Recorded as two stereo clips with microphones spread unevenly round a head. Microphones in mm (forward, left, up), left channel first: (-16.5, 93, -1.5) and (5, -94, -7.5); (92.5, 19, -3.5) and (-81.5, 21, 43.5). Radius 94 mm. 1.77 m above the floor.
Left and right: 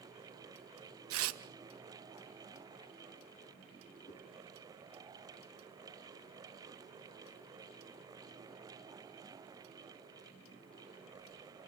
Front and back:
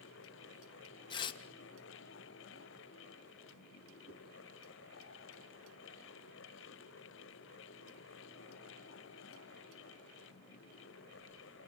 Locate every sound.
1.1 s tearing paper: 70° right, 1.6 m
4.1 s a whoosh: 150° left, 4 m